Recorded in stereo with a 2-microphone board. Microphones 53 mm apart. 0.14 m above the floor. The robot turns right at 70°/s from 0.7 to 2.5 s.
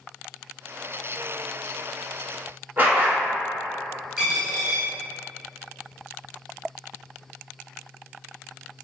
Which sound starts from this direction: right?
A dog barking, at 2.8 s.